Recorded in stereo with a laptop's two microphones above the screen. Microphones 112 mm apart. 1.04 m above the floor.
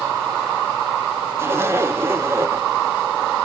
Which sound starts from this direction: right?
A zipper, at 1.4 s.